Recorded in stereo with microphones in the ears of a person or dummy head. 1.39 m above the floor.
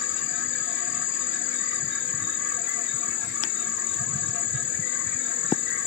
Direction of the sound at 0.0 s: 65° left (ahead or behind).